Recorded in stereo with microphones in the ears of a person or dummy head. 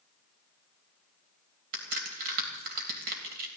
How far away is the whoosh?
I don't hear a whoosh.